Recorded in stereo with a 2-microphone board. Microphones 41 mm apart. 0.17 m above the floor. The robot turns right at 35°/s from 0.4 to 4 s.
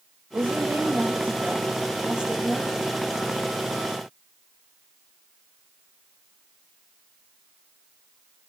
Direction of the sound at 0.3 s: 80° right.